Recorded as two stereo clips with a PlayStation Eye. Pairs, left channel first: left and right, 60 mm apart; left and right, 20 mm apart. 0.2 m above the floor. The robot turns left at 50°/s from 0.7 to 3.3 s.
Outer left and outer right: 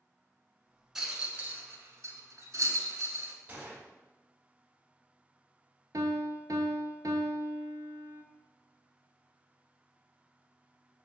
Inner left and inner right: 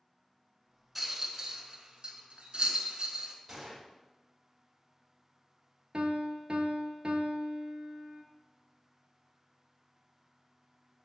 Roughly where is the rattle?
Centre.